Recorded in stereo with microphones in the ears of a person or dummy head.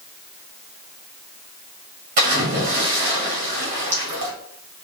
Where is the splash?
35° right (ahead or behind), 1.3 m.